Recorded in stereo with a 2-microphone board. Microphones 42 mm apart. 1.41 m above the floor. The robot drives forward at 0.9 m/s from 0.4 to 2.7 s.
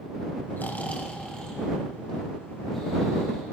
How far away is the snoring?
About 0.6 m.